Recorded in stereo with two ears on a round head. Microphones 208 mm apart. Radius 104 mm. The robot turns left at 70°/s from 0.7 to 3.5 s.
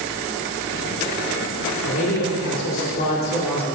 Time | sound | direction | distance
1.8 | a man speaking | 125° left | 2 m